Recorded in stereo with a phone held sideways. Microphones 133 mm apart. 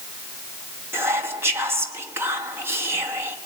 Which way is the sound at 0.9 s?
20° right (ahead or behind).